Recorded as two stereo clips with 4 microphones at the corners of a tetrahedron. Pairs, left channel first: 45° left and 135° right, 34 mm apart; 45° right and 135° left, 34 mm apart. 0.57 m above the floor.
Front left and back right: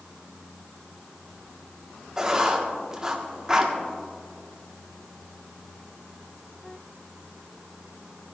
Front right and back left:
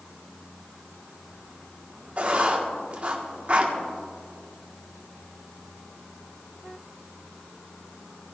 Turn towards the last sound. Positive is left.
turn(degrees=160)